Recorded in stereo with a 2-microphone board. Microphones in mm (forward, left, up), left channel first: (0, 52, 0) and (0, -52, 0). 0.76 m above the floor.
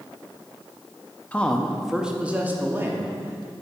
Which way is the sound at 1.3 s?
15° left (ahead or behind).